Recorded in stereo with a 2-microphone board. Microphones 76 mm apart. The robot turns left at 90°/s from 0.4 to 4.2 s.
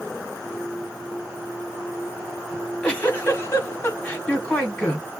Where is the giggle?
Straight behind, 1.7 m; by 5.1 s 25° left, 1.7 m.